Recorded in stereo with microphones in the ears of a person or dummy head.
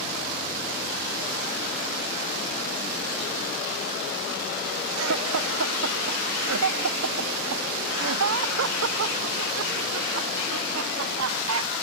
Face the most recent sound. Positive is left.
turn(degrees=-75)  # may be behind; listen again after turning